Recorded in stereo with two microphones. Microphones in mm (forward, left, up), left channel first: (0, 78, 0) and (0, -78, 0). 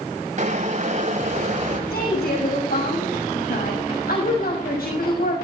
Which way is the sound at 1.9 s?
70° left (ahead or behind).